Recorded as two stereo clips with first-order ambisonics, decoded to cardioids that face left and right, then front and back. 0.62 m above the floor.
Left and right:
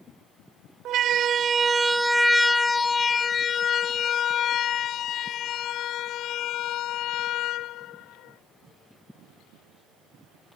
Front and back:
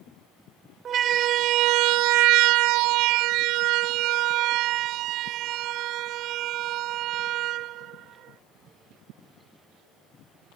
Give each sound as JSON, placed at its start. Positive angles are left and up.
{"t": 0.8, "sound": "a siren", "azimuth_deg": -125}